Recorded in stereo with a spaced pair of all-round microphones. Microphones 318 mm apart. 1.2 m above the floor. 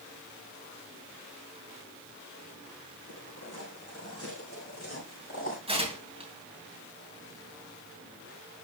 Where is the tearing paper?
15° right (ahead or behind), 2.5 m.